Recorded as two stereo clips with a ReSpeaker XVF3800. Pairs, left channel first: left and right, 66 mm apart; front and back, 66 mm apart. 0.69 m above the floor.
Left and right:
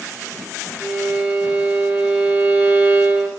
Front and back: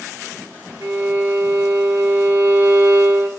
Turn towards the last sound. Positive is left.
turn(degrees=-155)